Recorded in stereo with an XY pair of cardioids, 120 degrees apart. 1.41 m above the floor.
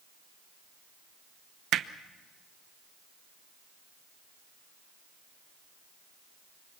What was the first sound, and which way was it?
Hammering, 60° right.